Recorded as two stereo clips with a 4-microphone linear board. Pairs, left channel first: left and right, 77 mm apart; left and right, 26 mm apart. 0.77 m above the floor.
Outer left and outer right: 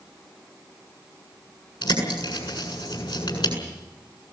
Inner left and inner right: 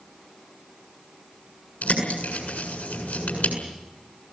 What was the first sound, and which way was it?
A bird, 85° left.